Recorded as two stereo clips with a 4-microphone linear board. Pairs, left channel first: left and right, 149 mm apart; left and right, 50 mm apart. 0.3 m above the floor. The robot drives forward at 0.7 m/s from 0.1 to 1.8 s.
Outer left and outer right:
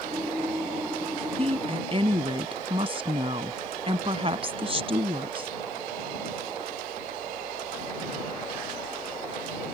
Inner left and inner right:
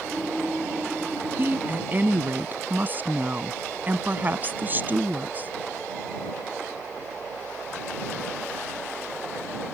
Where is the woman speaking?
40° right (ahead or behind); by 5.5 s 35° right (ahead or behind).